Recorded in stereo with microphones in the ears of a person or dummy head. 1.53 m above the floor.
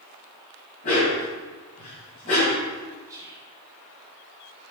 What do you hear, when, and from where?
0.8 s a dog barking: 30° left (ahead or behind), 2 m
3.1 s whispering: 20° right (ahead or behind), 1.9 m